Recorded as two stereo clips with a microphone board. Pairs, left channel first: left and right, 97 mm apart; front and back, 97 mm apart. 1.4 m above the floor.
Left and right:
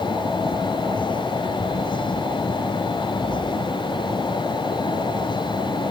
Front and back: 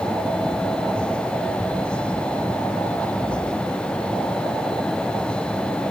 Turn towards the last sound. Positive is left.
No sound to turn to.